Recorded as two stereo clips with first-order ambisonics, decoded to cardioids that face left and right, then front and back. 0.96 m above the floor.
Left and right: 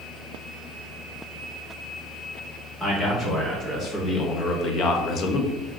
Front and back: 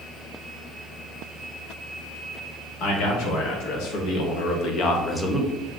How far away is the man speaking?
About 1.6 m.